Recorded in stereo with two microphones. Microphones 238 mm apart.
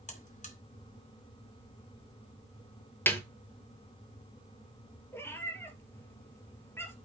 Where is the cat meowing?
10° left (ahead or behind), 1.8 m.